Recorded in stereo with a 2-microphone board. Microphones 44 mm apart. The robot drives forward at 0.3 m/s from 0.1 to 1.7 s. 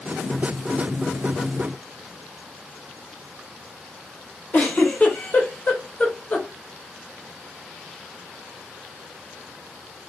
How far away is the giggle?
About 1.5 m.